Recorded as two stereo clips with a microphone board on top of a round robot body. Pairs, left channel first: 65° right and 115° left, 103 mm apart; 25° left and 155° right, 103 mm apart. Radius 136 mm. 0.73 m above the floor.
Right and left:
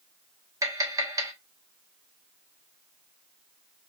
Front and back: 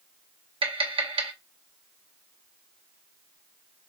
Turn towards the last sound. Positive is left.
turn(degrees=170)